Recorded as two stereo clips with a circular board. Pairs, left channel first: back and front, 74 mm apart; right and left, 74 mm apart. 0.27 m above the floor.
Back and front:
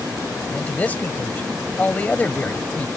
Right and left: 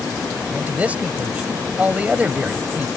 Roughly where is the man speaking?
Behind left.